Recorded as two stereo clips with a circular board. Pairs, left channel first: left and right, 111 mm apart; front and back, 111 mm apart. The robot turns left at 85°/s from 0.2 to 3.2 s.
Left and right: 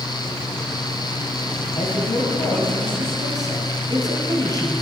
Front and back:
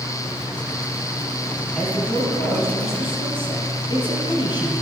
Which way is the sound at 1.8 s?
85° left.